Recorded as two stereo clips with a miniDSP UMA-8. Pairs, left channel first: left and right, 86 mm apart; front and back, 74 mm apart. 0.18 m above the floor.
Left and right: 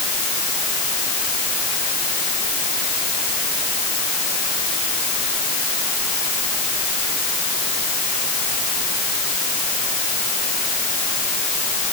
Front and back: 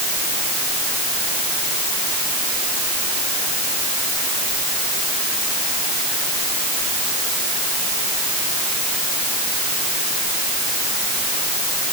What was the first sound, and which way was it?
Only background noise.